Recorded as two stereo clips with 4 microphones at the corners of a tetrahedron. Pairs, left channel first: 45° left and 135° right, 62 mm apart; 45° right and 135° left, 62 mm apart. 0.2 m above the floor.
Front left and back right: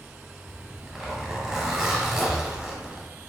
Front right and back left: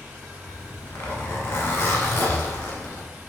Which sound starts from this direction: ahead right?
A zipper, at 0.5 s.